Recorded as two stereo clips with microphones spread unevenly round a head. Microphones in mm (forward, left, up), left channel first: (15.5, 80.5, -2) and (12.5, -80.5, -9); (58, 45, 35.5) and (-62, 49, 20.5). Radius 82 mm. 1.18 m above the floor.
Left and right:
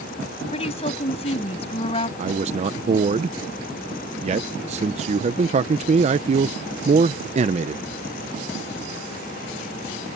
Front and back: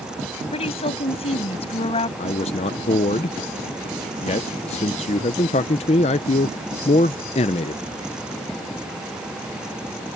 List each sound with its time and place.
0.5 s a woman speaking: 35° left
2.2 s a man speaking: 45° right